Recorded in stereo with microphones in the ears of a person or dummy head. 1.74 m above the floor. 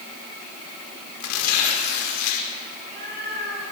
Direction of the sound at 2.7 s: 50° right (ahead or behind).